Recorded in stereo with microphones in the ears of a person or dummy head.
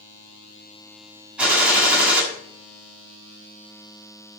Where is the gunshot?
5° right (ahead or behind), 6.5 m.